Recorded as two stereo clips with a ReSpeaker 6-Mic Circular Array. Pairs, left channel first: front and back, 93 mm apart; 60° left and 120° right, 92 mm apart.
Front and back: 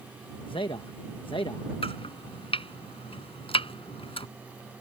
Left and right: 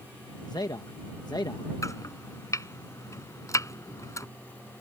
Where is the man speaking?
20° left.